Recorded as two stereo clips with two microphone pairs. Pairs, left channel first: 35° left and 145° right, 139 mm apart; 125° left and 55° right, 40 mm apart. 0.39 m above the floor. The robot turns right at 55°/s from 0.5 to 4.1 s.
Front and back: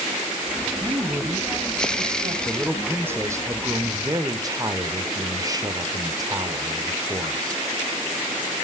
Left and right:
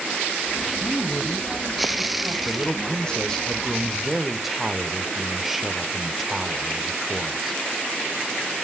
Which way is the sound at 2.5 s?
130° left.